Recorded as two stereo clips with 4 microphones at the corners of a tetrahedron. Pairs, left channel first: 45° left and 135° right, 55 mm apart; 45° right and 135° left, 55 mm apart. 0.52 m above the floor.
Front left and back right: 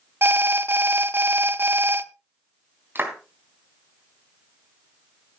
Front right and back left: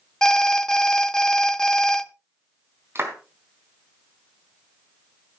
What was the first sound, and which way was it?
An alarm, 115° right.